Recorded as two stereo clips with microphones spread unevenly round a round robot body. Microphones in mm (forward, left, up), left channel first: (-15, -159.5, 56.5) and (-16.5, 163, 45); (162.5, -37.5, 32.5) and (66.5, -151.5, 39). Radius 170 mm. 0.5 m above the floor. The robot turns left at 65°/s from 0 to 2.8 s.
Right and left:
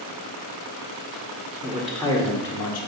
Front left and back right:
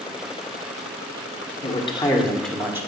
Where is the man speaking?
20° left, 1.5 m; by 2.9 s 55° right, 1.5 m.